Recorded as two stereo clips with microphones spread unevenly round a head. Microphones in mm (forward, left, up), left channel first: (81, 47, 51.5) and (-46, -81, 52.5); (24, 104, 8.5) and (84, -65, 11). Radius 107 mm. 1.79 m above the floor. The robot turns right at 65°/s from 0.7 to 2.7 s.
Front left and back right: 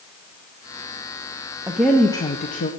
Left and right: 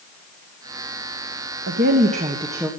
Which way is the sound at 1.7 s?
55° right.